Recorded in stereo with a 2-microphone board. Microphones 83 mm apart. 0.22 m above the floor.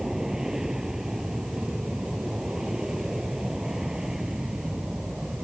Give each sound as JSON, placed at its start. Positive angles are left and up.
{"t": 0.0, "sound": "an aircraft", "side_deg": -5}